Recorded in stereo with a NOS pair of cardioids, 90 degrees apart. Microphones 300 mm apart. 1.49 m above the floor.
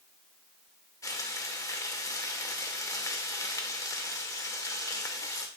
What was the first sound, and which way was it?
Frying, 10° left.